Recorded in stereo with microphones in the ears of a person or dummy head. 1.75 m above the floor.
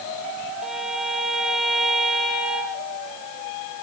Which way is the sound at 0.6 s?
Centre (ahead or behind).